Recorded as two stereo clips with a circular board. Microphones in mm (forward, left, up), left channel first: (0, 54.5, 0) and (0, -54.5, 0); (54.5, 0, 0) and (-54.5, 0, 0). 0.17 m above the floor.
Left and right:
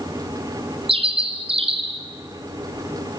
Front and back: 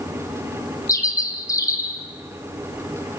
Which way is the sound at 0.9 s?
60° right.